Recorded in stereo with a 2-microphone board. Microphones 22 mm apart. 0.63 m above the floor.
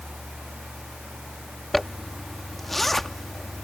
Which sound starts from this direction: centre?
A zipper, at 1.7 s.